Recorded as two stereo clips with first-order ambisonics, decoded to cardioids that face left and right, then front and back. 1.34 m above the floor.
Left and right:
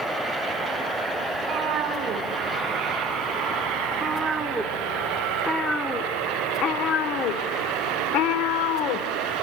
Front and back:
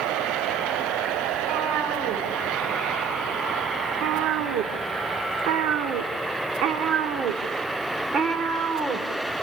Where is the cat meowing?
135° right, 3 m; by 9.4 s 105° left, 2.5 m.